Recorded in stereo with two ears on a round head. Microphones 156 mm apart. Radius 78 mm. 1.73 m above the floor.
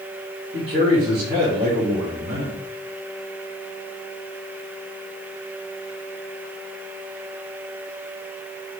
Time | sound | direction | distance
0.5 | a man speaking | 60° right (ahead or behind) | 2 m